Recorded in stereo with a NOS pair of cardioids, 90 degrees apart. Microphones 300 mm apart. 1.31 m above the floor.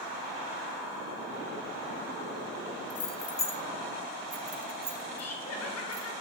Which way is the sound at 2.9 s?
40° left.